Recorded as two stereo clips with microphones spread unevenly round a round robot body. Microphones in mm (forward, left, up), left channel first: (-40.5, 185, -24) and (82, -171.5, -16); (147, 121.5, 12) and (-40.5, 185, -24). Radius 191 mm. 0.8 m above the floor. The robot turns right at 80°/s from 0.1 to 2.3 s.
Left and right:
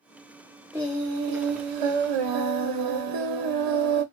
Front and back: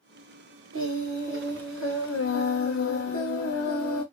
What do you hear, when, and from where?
0.7 s singing: 160° right, 0.6 m; by 4.0 s 35° right, 0.6 m